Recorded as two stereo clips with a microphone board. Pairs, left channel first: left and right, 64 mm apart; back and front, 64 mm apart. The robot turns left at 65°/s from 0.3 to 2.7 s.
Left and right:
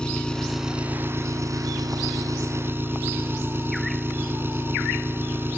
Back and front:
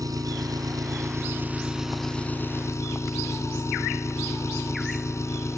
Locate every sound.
0.0 s an engine running: 15° left; by 5.6 s 140° right